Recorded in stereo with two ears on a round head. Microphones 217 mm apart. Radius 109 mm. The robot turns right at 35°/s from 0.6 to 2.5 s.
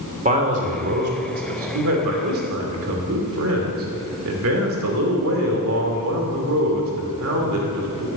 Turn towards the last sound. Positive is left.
turn(degrees=-75)